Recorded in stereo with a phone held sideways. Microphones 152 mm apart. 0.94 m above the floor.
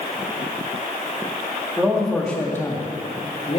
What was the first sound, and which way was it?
A man speaking, 5° right (ahead or behind).